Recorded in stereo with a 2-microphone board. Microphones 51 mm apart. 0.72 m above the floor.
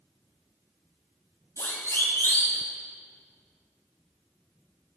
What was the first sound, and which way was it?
A siren, 75° left (ahead or behind).